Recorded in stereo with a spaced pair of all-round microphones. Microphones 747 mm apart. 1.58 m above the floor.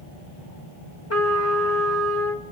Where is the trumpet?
20° left (ahead or behind), 1.6 m.